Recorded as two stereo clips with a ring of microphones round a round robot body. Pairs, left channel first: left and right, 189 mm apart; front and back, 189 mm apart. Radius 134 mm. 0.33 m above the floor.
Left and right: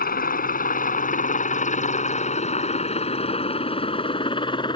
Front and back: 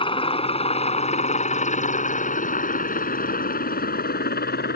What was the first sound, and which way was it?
A helicopter, 55° left.